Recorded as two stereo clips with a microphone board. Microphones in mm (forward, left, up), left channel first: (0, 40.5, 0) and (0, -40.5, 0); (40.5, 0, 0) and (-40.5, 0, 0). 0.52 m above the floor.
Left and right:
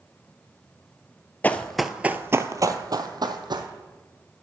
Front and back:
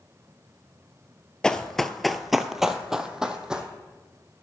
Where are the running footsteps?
70° left, 0.5 m; by 3.7 s 100° right, 1.1 m.